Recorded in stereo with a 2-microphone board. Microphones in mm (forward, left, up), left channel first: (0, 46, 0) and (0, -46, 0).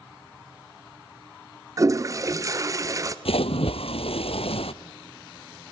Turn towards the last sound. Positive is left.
turn(degrees=80)